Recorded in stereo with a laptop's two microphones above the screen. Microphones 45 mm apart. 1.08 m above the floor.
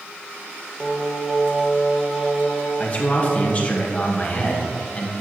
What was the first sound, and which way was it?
Singing, 5° right (ahead or behind).